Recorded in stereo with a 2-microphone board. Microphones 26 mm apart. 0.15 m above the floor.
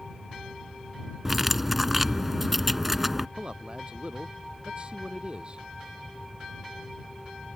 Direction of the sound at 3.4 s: 45° right (ahead or behind).